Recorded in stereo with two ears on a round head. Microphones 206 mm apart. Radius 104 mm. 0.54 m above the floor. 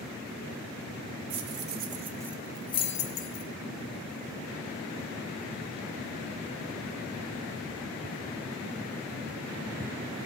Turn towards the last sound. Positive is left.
turn(degrees=45)  # may be behind; listen again after turning